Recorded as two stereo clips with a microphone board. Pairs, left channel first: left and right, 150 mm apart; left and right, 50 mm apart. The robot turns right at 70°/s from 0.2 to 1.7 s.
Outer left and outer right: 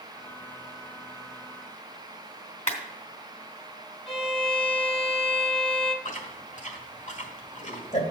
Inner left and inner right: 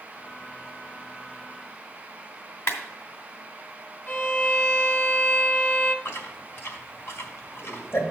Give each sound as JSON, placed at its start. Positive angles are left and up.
{"t": 2.7, "sound": "a clap", "side_deg": 55, "distance_m": 2.0}
{"t": 4.1, "sound": "a violin", "side_deg": 40, "distance_m": 1.0}
{"t": 6.0, "sound": "chewing", "side_deg": 55, "distance_m": 1.6}